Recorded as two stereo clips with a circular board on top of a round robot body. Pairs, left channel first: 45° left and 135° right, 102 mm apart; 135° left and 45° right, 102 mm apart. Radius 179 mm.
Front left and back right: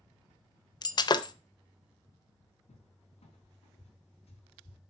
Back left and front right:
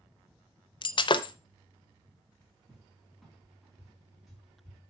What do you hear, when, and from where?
0.8 s breaking glass: 95° left, 0.6 m
2.7 s a cupboard door: 45° left, 4 m